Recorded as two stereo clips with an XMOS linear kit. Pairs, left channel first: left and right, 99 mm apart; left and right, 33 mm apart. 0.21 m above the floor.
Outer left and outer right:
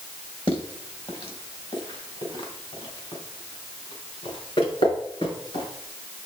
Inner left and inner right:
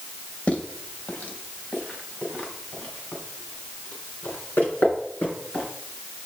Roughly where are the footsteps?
Left.